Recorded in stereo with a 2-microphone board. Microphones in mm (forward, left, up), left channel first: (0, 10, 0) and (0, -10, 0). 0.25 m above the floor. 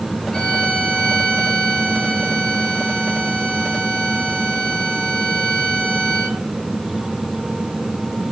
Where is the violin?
65° left (ahead or behind), 4 m.